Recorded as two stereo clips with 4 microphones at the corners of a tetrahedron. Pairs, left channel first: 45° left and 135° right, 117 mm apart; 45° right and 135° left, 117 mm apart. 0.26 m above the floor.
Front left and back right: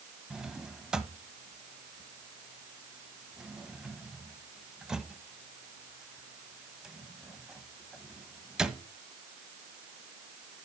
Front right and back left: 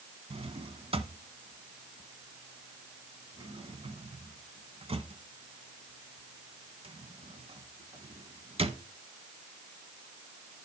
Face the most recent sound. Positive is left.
turn(degrees=140)